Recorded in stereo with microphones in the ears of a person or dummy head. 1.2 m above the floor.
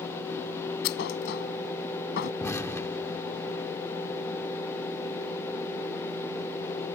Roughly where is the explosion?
Centre.